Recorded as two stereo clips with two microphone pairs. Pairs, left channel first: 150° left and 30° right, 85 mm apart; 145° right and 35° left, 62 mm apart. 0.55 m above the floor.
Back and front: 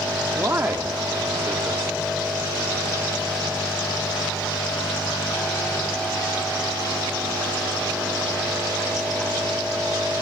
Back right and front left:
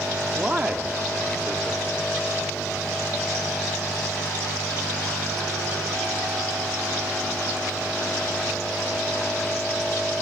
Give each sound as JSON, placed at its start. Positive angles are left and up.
{"t": 0.3, "sound": "a man speaking", "azimuth_deg": -15, "distance_m": 1.0}